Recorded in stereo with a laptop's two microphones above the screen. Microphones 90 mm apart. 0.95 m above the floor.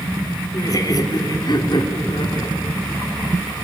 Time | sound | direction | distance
0.5 | laughter | 40° left (ahead or behind) | 3 m